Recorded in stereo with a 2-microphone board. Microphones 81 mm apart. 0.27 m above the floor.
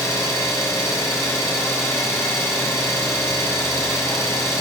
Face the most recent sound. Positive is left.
turn(degrees=35)  # may be behind; listen again after turning